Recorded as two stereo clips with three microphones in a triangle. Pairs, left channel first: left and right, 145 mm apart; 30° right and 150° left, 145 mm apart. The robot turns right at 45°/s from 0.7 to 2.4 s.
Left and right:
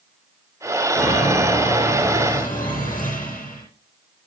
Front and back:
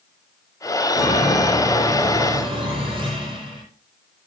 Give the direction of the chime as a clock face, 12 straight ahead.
11 o'clock.